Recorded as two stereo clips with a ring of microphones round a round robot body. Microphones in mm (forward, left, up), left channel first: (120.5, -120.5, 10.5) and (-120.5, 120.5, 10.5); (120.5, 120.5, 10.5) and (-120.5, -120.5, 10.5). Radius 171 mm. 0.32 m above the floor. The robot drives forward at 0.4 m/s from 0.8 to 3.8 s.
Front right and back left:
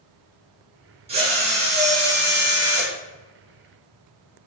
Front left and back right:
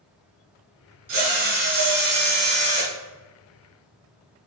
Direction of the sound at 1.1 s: 155° right.